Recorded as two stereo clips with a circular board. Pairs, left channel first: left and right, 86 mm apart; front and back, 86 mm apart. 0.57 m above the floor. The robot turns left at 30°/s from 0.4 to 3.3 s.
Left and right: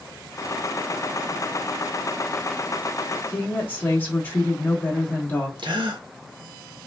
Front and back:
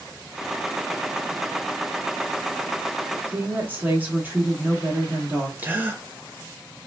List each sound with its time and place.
3.3 s a woman speaking: 135° left, 1.0 m; by 5.5 s 130° left, 1.0 m
5.6 s a gasp: 115° right, 0.5 m